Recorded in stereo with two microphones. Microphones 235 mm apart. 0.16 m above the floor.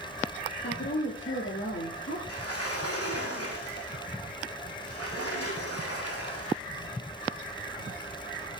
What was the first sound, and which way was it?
A woman speaking, 50° left (ahead or behind).